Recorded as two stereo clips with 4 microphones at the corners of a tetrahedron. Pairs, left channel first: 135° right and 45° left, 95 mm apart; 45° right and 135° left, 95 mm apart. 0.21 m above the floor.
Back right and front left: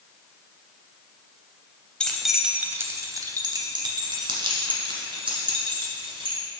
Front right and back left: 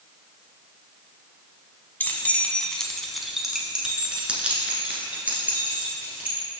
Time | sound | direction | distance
2.0 | keys jangling | 65° right | 0.7 m